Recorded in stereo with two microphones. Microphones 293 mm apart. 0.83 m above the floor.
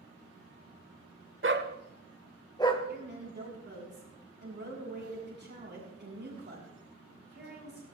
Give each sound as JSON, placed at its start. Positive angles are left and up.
{"t": 1.4, "sound": "a dog barking", "side_deg": -45, "distance_m": 1.1}
{"t": 2.9, "sound": "a woman speaking", "side_deg": -40, "distance_m": 7.5}